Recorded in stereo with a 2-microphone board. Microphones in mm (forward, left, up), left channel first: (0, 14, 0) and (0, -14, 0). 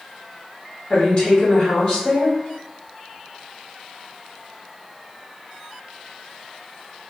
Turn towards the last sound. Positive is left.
turn(degrees=40)  # may be behind; listen again after turning